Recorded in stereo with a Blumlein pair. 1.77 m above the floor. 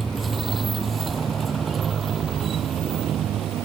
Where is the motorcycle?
10° right; by 3.7 s 30° right.